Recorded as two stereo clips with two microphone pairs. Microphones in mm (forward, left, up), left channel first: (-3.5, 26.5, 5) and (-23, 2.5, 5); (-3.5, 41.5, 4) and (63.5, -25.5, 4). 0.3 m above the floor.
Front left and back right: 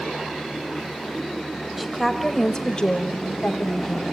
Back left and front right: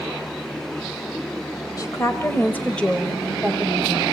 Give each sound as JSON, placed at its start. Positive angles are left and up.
{"t": 1.8, "sound": "a woman speaking", "azimuth_deg": 150, "distance_m": 1.3}